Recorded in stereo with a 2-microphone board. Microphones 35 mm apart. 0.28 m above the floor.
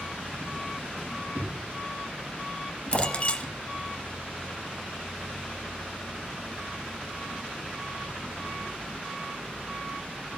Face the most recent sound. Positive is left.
turn(degrees=35)  # may be behind; listen again after turning